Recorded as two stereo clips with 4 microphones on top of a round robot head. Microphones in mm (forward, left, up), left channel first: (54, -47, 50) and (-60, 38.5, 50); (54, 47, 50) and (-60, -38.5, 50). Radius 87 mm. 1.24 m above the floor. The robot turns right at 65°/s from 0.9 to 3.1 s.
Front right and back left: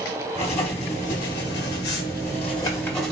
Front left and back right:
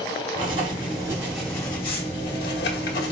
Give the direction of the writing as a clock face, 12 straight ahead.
3 o'clock.